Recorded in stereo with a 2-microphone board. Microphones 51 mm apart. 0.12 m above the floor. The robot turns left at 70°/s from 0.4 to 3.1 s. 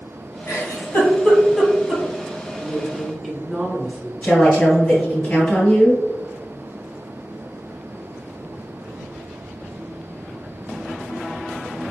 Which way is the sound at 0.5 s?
60° left (ahead or behind).